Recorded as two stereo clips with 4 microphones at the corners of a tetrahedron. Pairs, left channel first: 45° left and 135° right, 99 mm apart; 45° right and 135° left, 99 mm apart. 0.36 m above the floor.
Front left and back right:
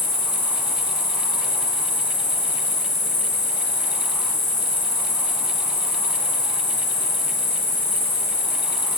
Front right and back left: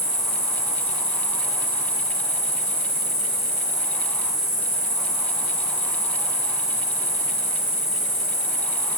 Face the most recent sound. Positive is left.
turn(degrees=105)